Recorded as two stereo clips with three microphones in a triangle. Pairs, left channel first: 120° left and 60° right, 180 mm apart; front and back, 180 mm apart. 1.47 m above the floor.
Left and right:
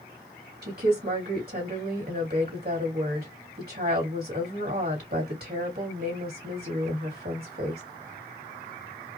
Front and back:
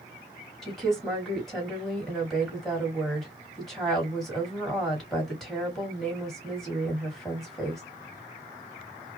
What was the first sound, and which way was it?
A woman speaking, 90° right.